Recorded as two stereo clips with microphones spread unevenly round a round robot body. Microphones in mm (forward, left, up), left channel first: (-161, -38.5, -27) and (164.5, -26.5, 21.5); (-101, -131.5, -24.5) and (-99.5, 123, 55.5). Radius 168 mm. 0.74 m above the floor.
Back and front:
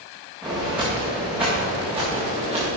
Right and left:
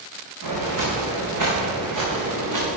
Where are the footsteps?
90° left, 4.5 m; by 2.7 s 85° left, 5.5 m.